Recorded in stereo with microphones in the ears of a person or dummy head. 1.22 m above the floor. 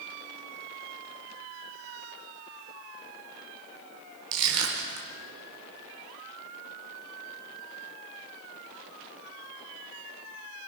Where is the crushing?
80° right, 4.5 m.